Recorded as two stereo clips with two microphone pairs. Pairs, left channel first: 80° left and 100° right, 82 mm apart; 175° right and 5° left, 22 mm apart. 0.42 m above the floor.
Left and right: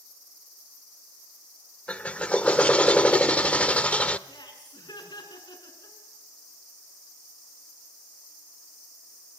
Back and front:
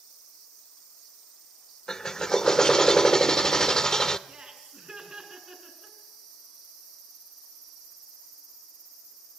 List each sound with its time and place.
1.9 s a drill: 145° left, 0.7 m
4.3 s laughter: 55° left, 5.5 m